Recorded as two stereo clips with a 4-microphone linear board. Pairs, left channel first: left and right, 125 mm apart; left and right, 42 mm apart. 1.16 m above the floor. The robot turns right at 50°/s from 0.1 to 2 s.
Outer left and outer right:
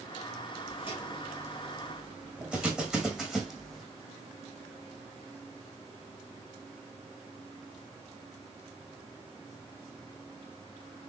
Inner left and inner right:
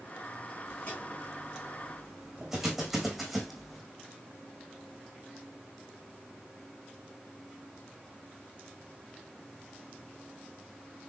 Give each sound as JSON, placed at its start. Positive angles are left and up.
{"t": 0.7, "sound": "footsteps", "side_deg": 50, "distance_m": 5.5}